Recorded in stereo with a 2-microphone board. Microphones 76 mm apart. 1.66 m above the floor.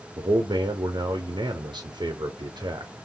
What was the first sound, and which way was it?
A man speaking, 85° right.